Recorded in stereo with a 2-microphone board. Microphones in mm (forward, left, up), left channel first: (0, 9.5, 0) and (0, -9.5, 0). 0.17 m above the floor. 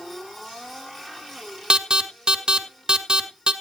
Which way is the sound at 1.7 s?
40° right (ahead or behind).